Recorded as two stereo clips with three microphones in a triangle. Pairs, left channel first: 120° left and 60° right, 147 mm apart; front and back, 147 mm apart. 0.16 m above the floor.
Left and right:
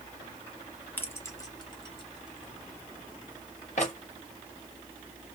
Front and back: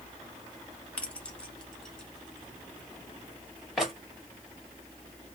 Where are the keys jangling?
65° left, 0.9 m; by 3.9 s 90° left, 2 m.